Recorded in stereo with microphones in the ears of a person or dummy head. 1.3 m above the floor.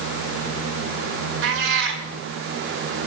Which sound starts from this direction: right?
A cat meowing, at 1.4 s.